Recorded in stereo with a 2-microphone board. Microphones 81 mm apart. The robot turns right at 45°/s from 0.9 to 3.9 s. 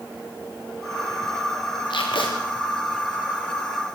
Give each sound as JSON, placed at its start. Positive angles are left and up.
{"t": 1.9, "sound": "tape being pulled", "side_deg": 80, "distance_m": 5.5}